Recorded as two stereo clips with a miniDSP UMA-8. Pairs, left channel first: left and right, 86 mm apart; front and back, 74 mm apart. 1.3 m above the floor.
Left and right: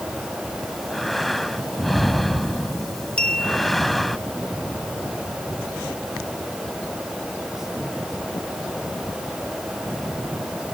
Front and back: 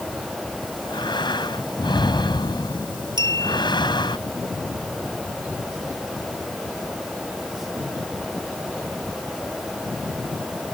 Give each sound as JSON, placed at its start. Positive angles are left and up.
{"t": 0.6, "sound": "breathing", "azimuth_deg": 0}
{"t": 3.2, "sound": "a clink", "azimuth_deg": 170}